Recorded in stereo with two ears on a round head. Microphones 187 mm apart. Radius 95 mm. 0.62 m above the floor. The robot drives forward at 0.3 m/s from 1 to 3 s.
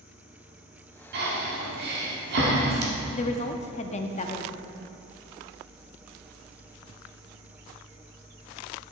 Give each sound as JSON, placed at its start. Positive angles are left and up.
{"t": 1.1, "sound": "breathing", "side_deg": -50, "distance_m": 1.9}
{"t": 3.1, "sound": "a woman speaking", "side_deg": 30, "distance_m": 0.6}